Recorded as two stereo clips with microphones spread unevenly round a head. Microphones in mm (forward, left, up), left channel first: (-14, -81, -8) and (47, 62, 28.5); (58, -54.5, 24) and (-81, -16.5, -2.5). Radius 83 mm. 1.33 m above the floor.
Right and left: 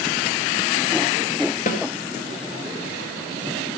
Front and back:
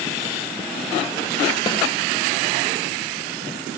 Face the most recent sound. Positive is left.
turn(degrees=-70)